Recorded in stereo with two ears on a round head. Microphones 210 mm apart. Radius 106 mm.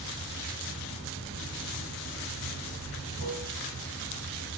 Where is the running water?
70° right (ahead or behind), 4.5 m.